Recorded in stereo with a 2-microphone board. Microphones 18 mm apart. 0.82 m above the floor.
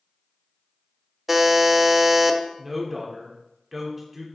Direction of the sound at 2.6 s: 10° right (ahead or behind).